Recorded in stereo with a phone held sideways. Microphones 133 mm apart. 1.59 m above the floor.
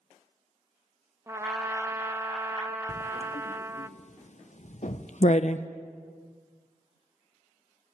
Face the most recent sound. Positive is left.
turn(degrees=55)  # may be behind; listen again after turning